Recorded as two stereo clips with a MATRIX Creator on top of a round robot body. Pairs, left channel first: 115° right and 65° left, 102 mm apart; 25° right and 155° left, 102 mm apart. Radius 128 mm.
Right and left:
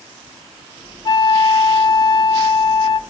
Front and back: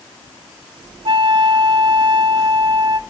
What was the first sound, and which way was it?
A flute, 160° right.